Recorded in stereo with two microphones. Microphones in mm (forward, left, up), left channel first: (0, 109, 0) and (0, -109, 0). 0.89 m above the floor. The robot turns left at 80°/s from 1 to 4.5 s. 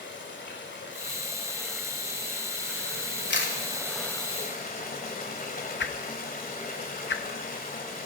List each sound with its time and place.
0.0 s running water: 60° left, 1.8 m; by 8.1 s 140° left, 1.8 m
3.3 s a camera shutter: 55° left (ahead or behind), 2 m; by 3.5 s 70° left (ahead or behind), 2 m
5.8 s a whoosh: 55° left (ahead or behind), 0.6 m